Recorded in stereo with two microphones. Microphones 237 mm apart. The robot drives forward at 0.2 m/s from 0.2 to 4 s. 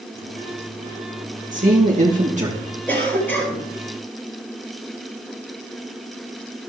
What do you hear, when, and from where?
1.5 s a man speaking: 35° right (ahead or behind), 2.5 m; by 2.6 s 30° right (ahead or behind), 2.5 m
2.9 s a cough: 10° left (ahead or behind), 4 m